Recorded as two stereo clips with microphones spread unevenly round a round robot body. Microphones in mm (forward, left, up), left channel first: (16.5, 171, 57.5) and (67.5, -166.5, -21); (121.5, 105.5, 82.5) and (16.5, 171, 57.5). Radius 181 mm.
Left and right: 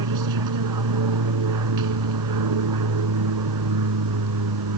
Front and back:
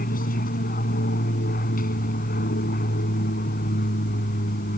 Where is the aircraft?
50° right.